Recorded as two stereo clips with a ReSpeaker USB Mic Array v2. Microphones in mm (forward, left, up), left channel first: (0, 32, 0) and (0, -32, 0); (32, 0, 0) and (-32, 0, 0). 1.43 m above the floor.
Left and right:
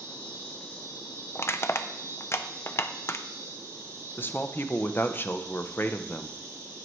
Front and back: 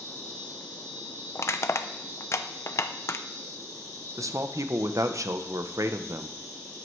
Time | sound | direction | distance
0.0 | an insect | 135° right | 6 m
1.4 | crushing | 40° left | 0.6 m
4.2 | a man speaking | 145° left | 0.8 m